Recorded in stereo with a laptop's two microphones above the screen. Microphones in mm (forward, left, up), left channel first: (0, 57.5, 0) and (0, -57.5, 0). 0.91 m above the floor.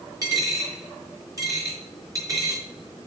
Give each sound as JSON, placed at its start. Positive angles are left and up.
{"t": 0.2, "sound": "a dropped coin", "side_deg": -25, "distance_m": 4.5}